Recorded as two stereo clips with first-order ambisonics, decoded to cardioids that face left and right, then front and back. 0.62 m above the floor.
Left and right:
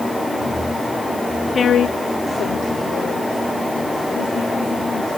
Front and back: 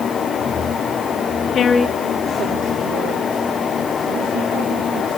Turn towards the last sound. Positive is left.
turn(degrees=150)